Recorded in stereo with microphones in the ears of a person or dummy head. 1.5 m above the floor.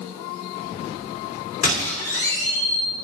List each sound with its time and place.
1.6 s a squeak: 45° left (ahead or behind), 3 m